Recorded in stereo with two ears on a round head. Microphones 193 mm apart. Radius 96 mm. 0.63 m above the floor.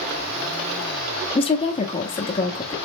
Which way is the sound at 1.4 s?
25° left (ahead or behind).